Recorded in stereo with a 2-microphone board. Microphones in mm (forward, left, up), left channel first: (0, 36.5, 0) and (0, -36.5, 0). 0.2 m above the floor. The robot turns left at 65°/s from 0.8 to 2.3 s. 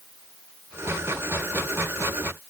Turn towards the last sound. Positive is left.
No sound to turn to.